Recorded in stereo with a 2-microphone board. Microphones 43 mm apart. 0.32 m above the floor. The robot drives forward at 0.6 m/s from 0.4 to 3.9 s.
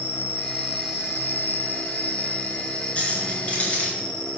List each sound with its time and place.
0.0 s an insect: 60° left (ahead or behind), 0.9 m; by 4.4 s 20° left (ahead or behind), 2 m
3.0 s keys jangling: 30° left (ahead or behind), 3.5 m; by 3.9 s 25° left (ahead or behind), 4 m